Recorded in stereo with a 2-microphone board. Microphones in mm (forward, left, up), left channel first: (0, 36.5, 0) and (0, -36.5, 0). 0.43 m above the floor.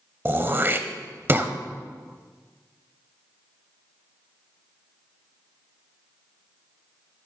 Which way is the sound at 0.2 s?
35° right (ahead or behind).